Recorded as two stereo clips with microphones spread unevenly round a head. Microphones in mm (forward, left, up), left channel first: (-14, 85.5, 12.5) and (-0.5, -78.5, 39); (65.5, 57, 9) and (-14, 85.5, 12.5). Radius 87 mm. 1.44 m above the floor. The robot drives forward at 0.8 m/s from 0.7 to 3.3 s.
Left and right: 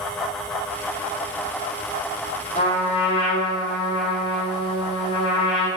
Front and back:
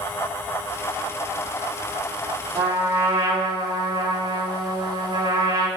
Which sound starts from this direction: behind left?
A trumpet, at 2.5 s.